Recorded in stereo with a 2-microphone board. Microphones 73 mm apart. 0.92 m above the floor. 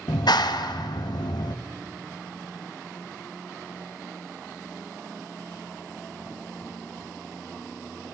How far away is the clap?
About 0.7 m.